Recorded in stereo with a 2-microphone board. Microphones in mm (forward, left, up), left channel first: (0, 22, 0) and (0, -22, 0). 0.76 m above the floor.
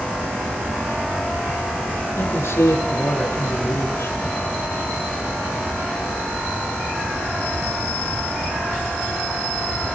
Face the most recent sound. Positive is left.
turn(degrees=85)